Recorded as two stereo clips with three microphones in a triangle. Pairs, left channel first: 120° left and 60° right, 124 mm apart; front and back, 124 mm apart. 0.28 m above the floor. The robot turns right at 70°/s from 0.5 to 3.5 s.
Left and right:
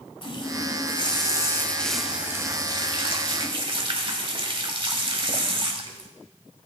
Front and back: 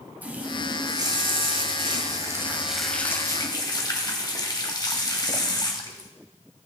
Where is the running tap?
110° left, 1.1 m; by 6.1 s 40° right, 1.1 m.